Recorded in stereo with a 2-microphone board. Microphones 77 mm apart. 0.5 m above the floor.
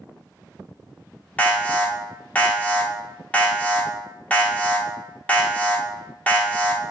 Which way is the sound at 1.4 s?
20° left (ahead or behind).